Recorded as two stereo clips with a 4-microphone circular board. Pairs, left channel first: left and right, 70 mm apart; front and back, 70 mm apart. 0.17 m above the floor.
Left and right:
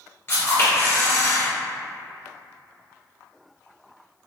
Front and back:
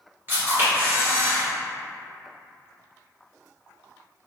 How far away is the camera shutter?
About 1.6 m.